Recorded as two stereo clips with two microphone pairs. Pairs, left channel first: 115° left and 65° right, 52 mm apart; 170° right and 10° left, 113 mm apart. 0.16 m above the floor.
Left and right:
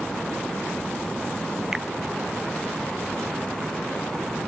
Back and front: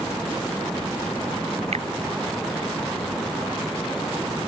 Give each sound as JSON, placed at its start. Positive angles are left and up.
{"t": 1.7, "sound": "a finger snap", "azimuth_deg": 15}